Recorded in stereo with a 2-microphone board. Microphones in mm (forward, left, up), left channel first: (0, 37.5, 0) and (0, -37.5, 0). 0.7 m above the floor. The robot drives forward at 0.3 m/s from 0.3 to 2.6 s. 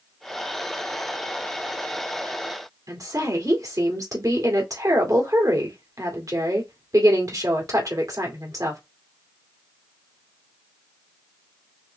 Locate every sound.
2.9 s a woman speaking: 50° right (ahead or behind), 2 m